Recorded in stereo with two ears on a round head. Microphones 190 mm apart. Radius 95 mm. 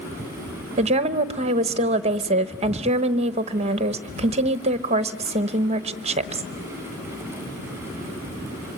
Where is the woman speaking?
30° right (ahead or behind), 1.0 m.